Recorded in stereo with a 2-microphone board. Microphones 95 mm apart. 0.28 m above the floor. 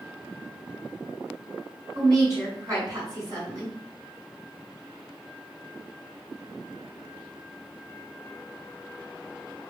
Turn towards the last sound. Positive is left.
turn(degrees=-35)  # may be behind; listen again after turning